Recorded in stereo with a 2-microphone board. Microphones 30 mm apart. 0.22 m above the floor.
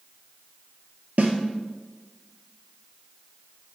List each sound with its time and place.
1.2 s a snare drum: 65° right (ahead or behind), 0.7 m